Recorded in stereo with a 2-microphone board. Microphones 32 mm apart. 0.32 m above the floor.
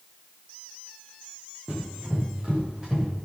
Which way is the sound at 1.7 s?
30° right (ahead or behind).